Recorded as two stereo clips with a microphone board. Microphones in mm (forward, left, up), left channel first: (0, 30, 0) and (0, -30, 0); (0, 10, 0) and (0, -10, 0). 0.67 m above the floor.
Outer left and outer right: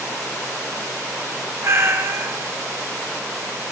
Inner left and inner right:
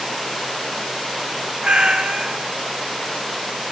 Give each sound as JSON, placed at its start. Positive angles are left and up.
{"t": 1.6, "sound": "a cat meowing", "side_deg": -45, "distance_m": 0.5}